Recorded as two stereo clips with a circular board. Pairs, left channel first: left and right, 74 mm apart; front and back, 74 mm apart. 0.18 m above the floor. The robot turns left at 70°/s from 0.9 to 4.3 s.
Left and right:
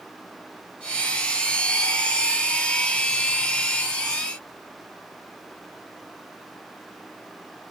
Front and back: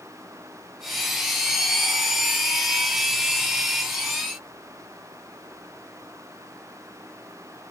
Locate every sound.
Only background noise.